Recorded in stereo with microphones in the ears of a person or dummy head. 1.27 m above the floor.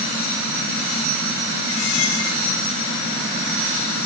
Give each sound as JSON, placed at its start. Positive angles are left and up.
{"t": 1.7, "sound": "a squeak", "side_deg": 85, "distance_m": 5.5}